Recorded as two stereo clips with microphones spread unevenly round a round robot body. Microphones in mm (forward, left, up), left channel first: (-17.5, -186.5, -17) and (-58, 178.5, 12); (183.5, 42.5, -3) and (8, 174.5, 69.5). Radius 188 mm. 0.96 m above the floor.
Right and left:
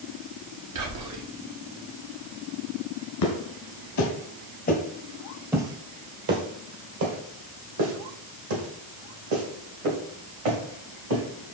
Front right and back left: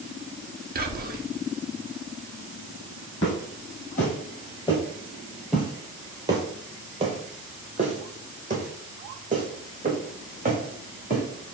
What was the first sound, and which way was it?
Whispering, 85° left.